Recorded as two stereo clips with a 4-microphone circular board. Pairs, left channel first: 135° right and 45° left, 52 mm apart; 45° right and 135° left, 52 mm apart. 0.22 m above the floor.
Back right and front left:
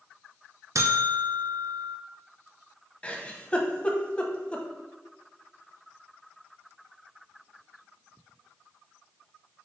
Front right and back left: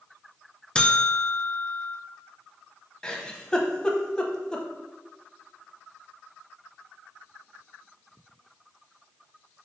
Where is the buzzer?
25° left, 0.7 m.